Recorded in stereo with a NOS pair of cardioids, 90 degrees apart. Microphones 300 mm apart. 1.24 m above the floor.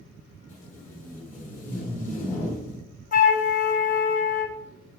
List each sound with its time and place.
0.5 s tape being pulled: 55° left, 2 m
3.1 s a flute: 30° left, 0.7 m